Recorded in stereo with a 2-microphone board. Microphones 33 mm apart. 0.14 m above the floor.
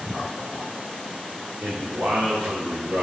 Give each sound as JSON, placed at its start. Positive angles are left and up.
{"t": 1.6, "sound": "a man speaking", "side_deg": -65, "distance_m": 4.5}